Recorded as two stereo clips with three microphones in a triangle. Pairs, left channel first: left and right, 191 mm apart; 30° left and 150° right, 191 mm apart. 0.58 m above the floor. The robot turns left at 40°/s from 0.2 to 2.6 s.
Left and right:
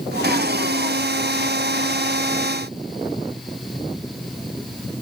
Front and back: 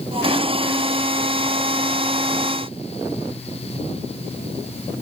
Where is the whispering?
I don't hear whispering.